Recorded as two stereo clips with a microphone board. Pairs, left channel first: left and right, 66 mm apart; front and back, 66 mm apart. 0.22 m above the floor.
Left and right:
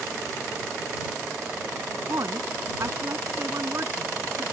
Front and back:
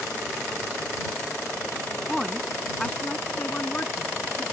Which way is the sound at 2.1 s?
85° right.